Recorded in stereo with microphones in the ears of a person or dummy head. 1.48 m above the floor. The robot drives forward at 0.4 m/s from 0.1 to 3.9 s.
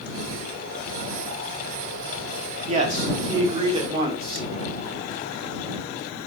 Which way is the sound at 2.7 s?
35° right (ahead or behind).